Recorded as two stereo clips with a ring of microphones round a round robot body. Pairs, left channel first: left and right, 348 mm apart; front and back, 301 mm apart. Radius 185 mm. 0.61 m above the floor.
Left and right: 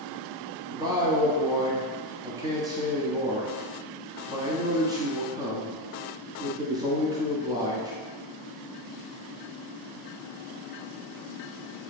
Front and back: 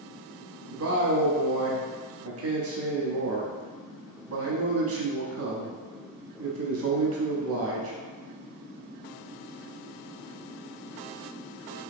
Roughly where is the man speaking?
Behind.